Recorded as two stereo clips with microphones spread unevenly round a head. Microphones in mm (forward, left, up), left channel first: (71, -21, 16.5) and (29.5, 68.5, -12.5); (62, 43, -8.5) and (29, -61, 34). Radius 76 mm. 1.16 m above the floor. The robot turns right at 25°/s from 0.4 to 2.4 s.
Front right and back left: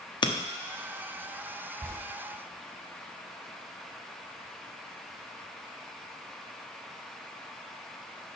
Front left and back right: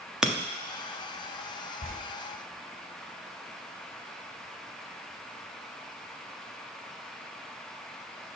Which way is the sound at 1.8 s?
40° left.